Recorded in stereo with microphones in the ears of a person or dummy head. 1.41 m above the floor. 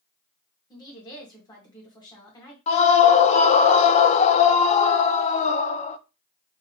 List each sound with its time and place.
0.7 s a woman speaking: 25° left (ahead or behind), 1.9 m
2.7 s a scream: 35° left (ahead or behind), 0.6 m